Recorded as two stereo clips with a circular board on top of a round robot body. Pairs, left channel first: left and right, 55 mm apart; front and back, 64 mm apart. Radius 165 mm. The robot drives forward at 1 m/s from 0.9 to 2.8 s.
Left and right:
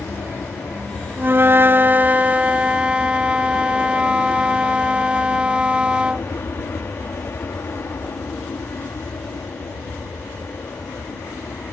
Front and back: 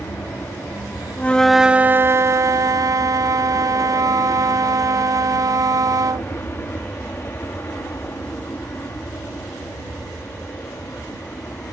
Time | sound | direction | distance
0.0 | an aircraft | 45° left | ?
1.2 | a flute | 55° right | ?